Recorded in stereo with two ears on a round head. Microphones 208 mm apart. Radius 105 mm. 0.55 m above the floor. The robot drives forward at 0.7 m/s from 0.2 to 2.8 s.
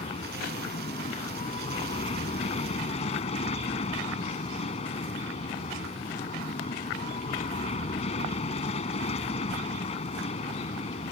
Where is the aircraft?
25° left (ahead or behind).